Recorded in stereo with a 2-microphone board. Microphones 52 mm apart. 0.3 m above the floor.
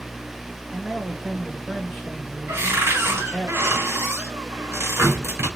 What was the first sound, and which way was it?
A man speaking, 10° right (ahead or behind).